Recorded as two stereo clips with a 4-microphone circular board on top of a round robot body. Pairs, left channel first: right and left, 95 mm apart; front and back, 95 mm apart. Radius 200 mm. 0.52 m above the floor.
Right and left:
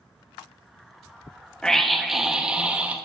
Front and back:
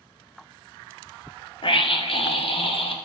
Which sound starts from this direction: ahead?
A scream, at 1.6 s.